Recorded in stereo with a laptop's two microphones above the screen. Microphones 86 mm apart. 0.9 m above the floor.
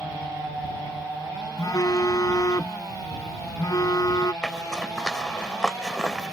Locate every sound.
1.6 s a phone buzzing: 40° left (ahead or behind)
4.4 s a zipper: 10° left (ahead or behind)